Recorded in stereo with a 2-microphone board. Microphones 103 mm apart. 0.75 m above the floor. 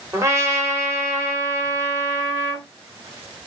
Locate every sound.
0.1 s a trumpet: 30° right (ahead or behind), 3 m